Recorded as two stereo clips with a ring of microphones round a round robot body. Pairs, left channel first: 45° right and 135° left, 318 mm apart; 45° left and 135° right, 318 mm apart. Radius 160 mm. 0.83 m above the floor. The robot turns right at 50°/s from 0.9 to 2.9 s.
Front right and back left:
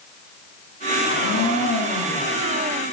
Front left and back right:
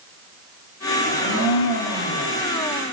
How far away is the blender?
About 1.9 m.